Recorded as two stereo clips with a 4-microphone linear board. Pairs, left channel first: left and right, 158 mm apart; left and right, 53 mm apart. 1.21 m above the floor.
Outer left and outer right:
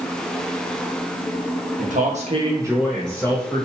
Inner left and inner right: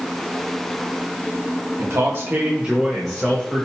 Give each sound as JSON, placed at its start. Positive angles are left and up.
{"t": 1.8, "sound": "a man speaking", "side_deg": -60, "distance_m": 0.8}